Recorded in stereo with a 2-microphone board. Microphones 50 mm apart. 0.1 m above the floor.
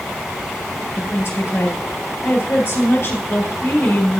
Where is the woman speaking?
40° left (ahead or behind), 1.9 m.